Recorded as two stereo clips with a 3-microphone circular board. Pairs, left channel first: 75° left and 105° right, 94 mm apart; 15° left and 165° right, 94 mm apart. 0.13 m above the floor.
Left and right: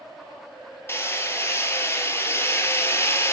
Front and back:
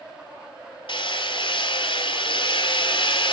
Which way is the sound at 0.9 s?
15° left.